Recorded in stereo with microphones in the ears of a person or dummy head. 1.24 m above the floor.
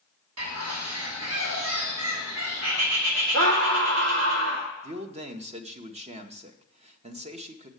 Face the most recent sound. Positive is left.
turn(degrees=-35)  # may be behind; listen again after turning